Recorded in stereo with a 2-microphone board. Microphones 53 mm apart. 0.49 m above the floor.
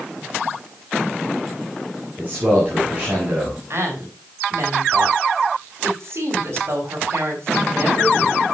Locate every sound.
2.2 s a man speaking: 35° right (ahead or behind), 5.5 m
3.7 s a woman speaking: 60° right (ahead or behind), 4.5 m